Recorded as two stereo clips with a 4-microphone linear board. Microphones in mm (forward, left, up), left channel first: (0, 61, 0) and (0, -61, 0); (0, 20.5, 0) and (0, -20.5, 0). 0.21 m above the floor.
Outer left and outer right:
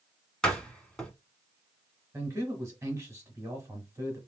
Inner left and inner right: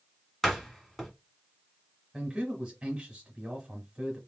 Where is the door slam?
5° left (ahead or behind), 1.1 m.